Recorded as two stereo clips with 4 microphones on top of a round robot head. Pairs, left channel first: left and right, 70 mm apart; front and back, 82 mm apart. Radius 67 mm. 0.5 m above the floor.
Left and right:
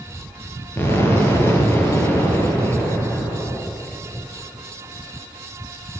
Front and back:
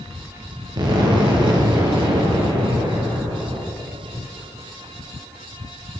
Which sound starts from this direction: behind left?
An explosion, at 0.8 s.